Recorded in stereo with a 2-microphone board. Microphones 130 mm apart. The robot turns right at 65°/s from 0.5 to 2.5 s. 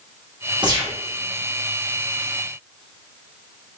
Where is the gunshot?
35° right (ahead or behind), 1.2 m; by 1.0 s 15° right (ahead or behind), 1.2 m.